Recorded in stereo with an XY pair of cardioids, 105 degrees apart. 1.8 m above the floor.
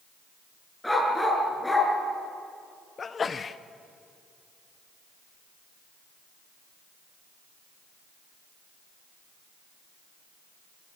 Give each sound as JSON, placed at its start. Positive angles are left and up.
{"t": 0.8, "sound": "a dog barking", "azimuth_deg": 10, "distance_m": 6.5}
{"t": 3.0, "sound": "a sneeze", "azimuth_deg": 35, "distance_m": 1.3}